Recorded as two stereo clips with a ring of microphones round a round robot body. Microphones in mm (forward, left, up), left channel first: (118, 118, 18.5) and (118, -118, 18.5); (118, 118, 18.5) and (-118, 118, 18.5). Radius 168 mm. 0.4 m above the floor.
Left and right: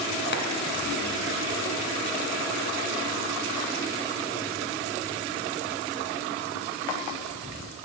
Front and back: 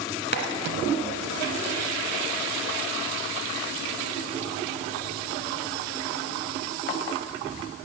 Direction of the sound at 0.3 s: 45° left.